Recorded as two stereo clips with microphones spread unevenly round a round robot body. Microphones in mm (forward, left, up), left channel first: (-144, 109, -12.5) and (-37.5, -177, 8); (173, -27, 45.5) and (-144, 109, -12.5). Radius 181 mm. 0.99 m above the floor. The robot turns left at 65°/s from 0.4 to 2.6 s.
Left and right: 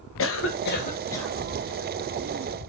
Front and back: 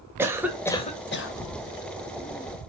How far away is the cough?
About 0.9 m.